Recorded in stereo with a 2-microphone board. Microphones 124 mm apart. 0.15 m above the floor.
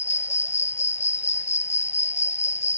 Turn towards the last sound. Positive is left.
turn(degrees=70)  # may be behind; listen again after turning